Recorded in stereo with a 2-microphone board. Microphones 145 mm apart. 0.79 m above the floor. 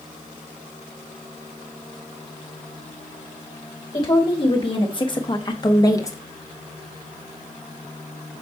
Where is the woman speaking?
35° left (ahead or behind), 1.5 m; by 6.2 s 20° left (ahead or behind), 1.2 m.